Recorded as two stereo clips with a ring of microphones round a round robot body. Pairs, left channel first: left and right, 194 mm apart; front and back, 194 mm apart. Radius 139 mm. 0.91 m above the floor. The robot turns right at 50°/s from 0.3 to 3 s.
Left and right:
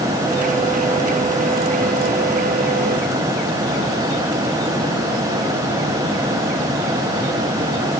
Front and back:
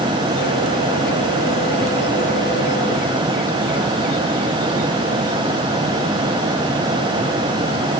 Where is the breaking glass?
No breaking glass in this recording.